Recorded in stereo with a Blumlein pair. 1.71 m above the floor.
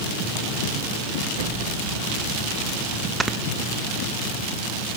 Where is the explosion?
45° right, 2.5 m.